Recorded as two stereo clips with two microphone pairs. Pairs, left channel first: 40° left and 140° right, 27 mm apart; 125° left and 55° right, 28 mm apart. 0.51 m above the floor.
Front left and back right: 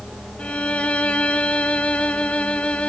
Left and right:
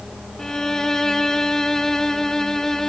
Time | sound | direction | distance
0.4 | a violin | 50° left | 1.1 m